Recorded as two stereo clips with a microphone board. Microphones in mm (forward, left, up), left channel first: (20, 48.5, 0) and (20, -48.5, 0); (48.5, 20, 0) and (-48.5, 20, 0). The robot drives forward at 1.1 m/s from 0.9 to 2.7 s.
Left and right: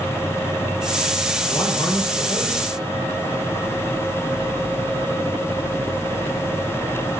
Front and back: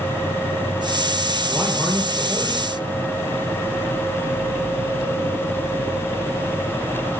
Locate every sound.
1.5 s a man speaking: 75° left, 3 m; by 2.8 s 105° left, 3 m